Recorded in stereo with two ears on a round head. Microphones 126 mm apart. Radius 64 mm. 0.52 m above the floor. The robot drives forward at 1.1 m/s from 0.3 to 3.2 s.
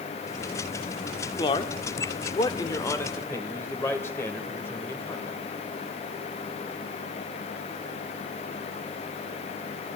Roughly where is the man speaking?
Left.